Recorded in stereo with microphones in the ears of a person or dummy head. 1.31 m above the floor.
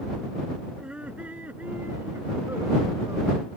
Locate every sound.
0.8 s laughter: 5° right (ahead or behind); by 3.5 s 15° right (ahead or behind)